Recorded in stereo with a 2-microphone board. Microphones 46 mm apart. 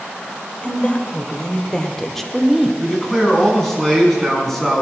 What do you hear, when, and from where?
0.6 s a woman speaking: 30° left (ahead or behind), 2.5 m; by 2.7 s 5° right (ahead or behind), 1.5 m
2.8 s a man speaking: 5° left (ahead or behind), 6 m